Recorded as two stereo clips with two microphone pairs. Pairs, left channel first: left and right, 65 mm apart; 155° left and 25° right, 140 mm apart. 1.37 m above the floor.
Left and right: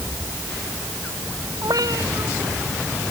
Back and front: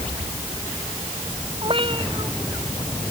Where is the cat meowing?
75° right.